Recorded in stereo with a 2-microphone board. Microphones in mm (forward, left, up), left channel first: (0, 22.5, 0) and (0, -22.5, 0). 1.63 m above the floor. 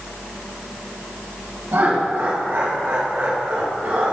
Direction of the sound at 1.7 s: 55° right (ahead or behind).